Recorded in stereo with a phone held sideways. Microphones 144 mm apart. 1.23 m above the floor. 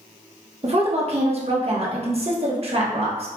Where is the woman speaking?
45° right (ahead or behind), 1.1 m.